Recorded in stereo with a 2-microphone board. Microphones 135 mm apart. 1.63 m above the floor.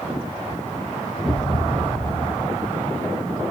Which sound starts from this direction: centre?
A thud, at 1.2 s.